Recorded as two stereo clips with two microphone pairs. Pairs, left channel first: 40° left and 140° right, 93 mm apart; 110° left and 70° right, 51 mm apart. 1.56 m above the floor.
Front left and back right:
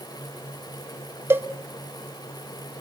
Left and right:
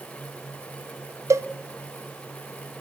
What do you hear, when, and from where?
1.3 s a cowbell: 75° right, 0.7 m